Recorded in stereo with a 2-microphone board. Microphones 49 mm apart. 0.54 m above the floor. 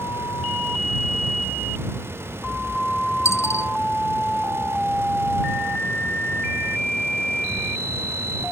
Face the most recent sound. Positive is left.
turn(degrees=85)